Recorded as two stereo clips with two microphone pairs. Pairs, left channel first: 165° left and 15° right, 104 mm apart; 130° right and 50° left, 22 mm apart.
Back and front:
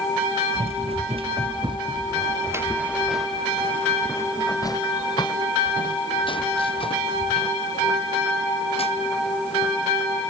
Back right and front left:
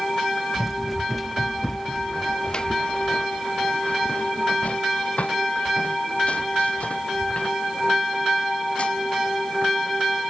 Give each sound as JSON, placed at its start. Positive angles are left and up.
{"t": 0.6, "sound": "running footsteps", "azimuth_deg": -40}